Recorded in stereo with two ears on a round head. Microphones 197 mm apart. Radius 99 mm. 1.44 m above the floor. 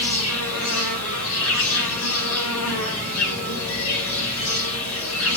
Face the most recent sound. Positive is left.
turn(degrees=70)  # may be behind; listen again after turning